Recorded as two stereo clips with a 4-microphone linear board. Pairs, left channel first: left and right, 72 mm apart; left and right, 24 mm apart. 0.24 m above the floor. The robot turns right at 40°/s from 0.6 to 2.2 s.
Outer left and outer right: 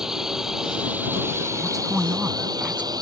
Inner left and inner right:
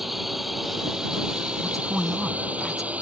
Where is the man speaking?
Centre (ahead or behind); by 2.9 s 20° right (ahead or behind).